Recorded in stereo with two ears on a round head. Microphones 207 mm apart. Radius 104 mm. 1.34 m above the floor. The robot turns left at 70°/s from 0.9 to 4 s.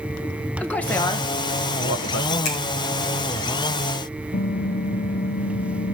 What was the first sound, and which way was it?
A man speaking, 5° left (ahead or behind).